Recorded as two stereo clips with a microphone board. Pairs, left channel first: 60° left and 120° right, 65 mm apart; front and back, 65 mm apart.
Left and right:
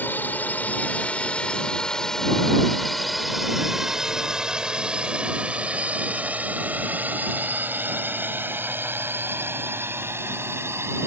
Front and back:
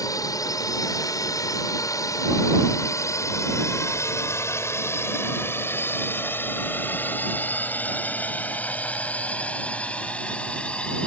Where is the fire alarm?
I don't hear a fire alarm.